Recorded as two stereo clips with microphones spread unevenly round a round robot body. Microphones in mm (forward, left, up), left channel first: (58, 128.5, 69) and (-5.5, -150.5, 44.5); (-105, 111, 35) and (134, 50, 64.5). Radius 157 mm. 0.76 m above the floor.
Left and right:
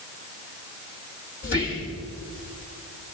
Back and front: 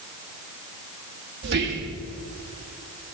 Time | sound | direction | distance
1.4 | whispering | 25° left | 1.6 m